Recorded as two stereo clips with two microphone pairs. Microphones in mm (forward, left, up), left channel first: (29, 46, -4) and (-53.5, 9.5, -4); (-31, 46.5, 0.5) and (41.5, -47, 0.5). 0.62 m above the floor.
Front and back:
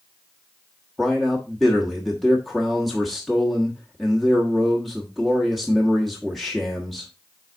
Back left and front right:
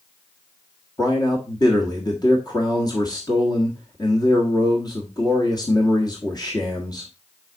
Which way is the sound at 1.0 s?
110° left.